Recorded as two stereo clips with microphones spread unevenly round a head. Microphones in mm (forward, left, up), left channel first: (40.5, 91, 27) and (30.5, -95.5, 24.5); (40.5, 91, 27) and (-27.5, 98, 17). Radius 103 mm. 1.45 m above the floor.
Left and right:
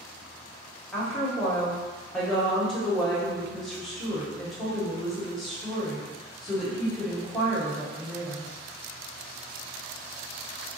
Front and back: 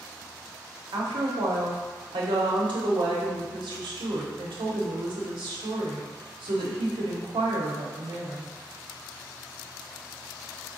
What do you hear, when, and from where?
0.9 s a woman speaking: 175° left, 0.9 m